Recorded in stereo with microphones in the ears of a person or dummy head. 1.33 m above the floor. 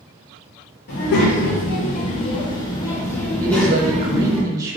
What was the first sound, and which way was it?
A child speaking, 55° left (ahead or behind).